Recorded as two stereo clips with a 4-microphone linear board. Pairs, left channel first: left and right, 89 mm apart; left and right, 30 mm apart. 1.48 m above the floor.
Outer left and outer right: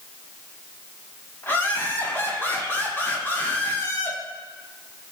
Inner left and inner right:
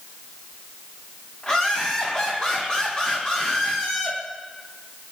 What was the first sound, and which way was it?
Laughter, 30° left (ahead or behind).